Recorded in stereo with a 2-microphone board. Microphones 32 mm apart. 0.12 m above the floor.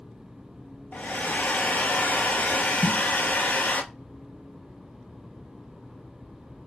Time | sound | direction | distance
0.9 | a hair dryer | 60° left (ahead or behind) | 0.7 m
2.8 | a snare drum | 10° left (ahead or behind) | 1.1 m